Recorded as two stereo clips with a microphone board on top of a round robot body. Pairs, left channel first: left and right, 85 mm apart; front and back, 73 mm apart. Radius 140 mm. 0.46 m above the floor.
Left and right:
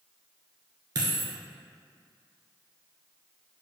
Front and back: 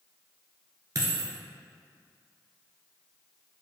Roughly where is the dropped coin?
Behind right.